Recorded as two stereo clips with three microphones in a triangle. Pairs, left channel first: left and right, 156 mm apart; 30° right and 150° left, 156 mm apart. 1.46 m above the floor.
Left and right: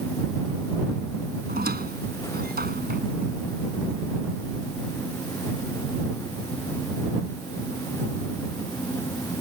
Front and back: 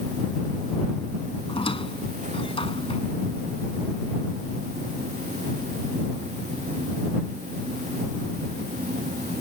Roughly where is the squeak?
Right.